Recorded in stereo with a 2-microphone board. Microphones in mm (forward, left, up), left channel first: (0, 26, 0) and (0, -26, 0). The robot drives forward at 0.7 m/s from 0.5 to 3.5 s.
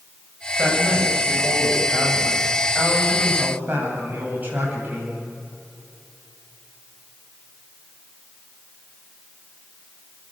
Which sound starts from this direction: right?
A woman speaking, at 0.6 s.